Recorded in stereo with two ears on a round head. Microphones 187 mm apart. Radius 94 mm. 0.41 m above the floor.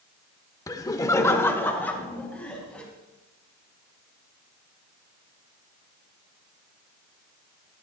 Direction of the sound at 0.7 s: 15° left (ahead or behind).